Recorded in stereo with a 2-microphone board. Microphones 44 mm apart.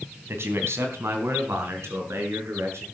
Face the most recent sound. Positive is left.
turn(degrees=-80)